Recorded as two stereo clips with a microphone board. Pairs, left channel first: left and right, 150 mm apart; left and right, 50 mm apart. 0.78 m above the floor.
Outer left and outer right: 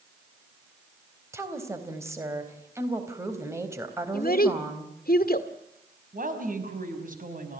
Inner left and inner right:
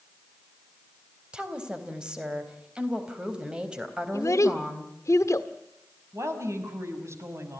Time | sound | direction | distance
1.3 | a woman speaking | 20° right (ahead or behind) | 3.5 m
4.1 | a child speaking | 75° left (ahead or behind) | 1.6 m
6.1 | a woman speaking | 60° right (ahead or behind) | 5 m